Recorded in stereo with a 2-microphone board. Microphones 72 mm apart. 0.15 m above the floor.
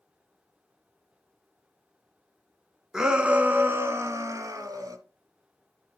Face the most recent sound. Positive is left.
turn(degrees=-55)  # may be behind; listen again after turning